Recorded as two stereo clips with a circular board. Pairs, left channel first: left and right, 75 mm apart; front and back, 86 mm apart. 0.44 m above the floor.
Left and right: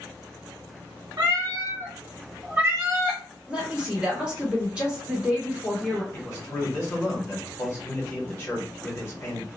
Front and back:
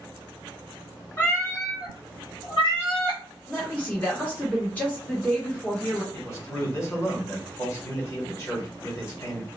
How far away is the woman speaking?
About 1.1 m.